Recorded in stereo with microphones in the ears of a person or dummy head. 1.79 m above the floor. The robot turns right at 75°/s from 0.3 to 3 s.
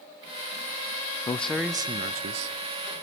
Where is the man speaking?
165° left, 0.5 m; by 2.6 s 95° right, 0.5 m.